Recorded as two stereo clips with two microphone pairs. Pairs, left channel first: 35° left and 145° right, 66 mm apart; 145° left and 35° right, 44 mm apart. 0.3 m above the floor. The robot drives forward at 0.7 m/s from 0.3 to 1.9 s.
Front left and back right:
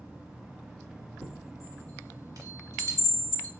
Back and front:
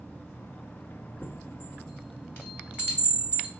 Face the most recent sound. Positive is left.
turn(degrees=-170)